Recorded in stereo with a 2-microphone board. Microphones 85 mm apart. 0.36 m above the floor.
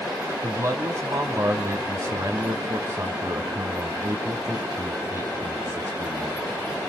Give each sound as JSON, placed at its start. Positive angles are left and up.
{"t": 0.4, "sound": "a man speaking", "side_deg": -40, "distance_m": 2.5}